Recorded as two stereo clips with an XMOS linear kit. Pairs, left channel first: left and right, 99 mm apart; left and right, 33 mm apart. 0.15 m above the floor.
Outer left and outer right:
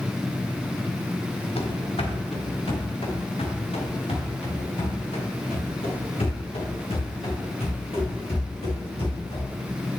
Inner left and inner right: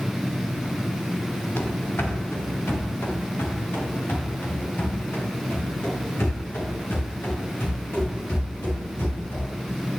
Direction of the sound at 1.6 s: 85° left.